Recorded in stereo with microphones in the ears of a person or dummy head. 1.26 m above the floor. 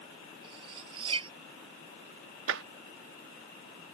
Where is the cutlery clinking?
30° right (ahead or behind).